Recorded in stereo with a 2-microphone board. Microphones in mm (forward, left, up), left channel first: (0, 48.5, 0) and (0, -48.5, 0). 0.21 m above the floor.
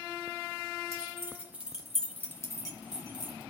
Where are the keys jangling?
30° right (ahead or behind), 1.8 m; by 3.4 s 50° left (ahead or behind), 1.8 m.